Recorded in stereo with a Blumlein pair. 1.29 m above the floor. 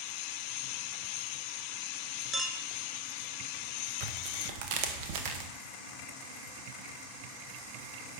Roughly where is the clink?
Ahead.